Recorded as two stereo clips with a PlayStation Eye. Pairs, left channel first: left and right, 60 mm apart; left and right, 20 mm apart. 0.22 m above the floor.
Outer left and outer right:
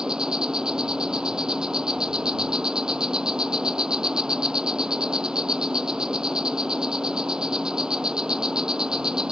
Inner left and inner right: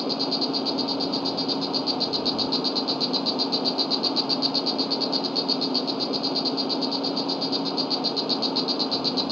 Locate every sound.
0.0 s an insect: 15° right (ahead or behind)